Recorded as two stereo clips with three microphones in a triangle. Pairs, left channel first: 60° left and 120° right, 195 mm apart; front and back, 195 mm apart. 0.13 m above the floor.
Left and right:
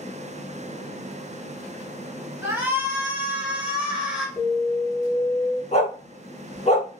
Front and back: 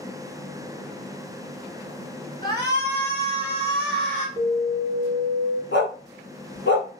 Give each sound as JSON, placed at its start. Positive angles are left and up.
{"t": 2.4, "sound": "a shout", "azimuth_deg": -50, "distance_m": 1.6}
{"t": 4.4, "sound": "an alarm", "azimuth_deg": 50, "distance_m": 1.6}
{"t": 5.7, "sound": "a dog barking", "azimuth_deg": 5, "distance_m": 1.0}